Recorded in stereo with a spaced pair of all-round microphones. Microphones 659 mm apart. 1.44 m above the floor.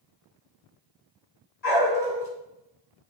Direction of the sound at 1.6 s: 75° left (ahead or behind).